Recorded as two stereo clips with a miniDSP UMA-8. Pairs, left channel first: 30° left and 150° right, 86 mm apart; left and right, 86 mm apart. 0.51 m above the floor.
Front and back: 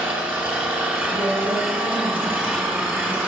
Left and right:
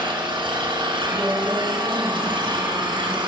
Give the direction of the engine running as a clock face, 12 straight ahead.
3 o'clock.